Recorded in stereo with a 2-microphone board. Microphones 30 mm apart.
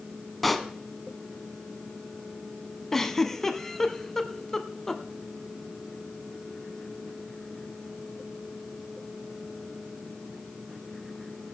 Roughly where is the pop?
Centre.